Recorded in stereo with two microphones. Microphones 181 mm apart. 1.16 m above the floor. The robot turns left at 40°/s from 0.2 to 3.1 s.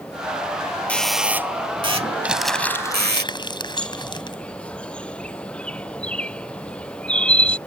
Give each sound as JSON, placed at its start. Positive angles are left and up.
{"t": 0.9, "sound": "a doorbell", "side_deg": 10}
{"t": 2.2, "sound": "crumpling", "side_deg": -10}
{"t": 3.8, "sound": "a bird", "side_deg": 5}